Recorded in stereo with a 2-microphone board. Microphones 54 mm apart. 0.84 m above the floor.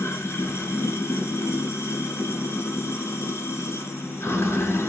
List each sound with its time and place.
0.0 s running water: 60° left (ahead or behind), 1.2 m